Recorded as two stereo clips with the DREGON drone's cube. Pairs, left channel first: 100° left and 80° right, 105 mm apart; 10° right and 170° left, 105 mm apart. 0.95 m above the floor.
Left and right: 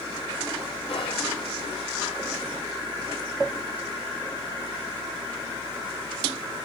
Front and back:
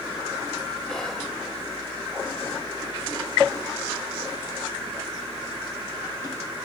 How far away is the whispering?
About 0.5 m.